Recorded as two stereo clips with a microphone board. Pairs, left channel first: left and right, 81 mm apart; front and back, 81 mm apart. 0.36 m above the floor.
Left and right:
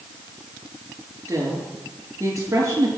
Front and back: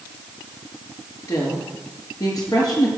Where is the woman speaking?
40° right, 6 m.